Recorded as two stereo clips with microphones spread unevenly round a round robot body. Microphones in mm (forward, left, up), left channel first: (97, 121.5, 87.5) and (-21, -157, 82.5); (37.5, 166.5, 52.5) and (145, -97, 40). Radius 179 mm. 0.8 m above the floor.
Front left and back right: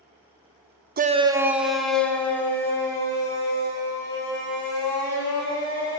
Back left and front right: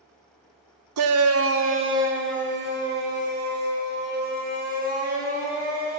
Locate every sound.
1.0 s a shout: 55° right, 0.7 m; by 6.0 s 10° right, 6.5 m